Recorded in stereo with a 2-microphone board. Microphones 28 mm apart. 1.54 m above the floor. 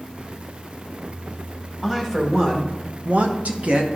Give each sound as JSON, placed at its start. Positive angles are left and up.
{"t": 1.8, "sound": "a woman speaking", "side_deg": -20, "distance_m": 1.5}